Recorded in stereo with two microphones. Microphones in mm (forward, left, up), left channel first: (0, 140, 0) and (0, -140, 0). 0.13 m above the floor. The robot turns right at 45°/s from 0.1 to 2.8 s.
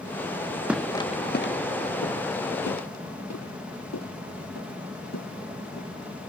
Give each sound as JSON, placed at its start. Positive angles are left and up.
{"t": 0.7, "sound": "footsteps", "side_deg": -5}